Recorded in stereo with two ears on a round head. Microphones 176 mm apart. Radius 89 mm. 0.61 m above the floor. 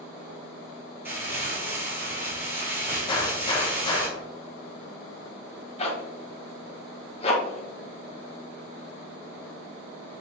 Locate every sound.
1.1 s crumpling: 10° right (ahead or behind), 2.5 m
3.1 s a gunshot: 25° left (ahead or behind), 0.9 m
5.8 s a zipper: 30° left (ahead or behind), 1.0 m